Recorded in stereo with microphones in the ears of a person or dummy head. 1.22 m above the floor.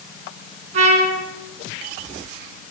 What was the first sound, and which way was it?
A trumpet, 45° right (ahead or behind).